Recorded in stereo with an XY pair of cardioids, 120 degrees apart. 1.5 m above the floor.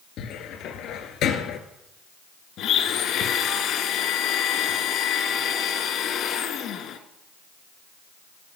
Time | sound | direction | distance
0.2 | a cupboard door | 70° left | 2 m
2.6 | a blender | 70° left | 1.8 m